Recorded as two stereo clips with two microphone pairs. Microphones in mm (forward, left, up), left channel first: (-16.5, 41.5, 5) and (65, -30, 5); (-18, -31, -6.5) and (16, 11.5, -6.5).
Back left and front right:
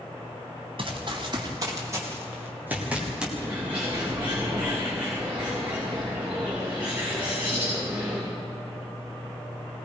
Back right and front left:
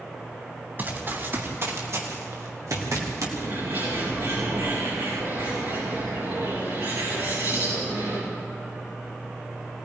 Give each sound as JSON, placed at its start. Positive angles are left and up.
{"t": 0.8, "sound": "running footsteps", "azimuth_deg": -5, "distance_m": 4.5}
{"t": 3.4, "sound": "a bird", "azimuth_deg": 30, "distance_m": 9.0}